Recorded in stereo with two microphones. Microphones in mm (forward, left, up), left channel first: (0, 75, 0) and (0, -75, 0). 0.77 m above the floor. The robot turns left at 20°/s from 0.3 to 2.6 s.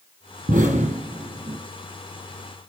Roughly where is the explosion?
Right.